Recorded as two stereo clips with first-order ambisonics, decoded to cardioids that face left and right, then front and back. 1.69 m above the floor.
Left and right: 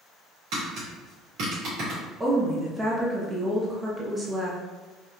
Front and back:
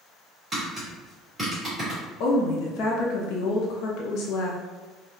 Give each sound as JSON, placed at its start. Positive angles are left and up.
{"t": 0.5, "sound": "tapping", "azimuth_deg": -95, "distance_m": 1.9}
{"t": 2.2, "sound": "a woman speaking", "azimuth_deg": -15, "distance_m": 0.6}